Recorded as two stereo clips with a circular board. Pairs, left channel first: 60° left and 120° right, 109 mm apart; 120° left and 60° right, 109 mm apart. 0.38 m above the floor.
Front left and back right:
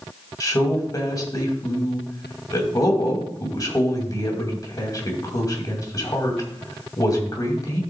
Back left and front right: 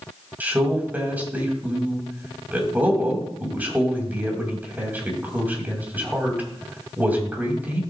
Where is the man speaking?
10° left, 2.5 m.